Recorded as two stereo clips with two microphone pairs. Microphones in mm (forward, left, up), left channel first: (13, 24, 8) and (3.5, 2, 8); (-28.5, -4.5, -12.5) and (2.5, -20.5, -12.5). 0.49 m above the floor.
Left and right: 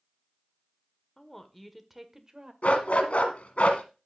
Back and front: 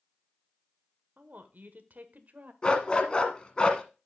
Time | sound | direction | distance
1.2 | a woman speaking | 5° right | 1.3 m
2.6 | a dog barking | 90° left | 1.5 m